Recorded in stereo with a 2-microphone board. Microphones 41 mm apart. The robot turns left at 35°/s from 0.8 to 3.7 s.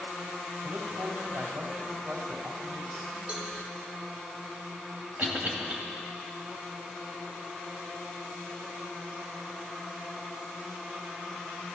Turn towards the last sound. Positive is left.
turn(degrees=-40)  # may be behind; listen again after turning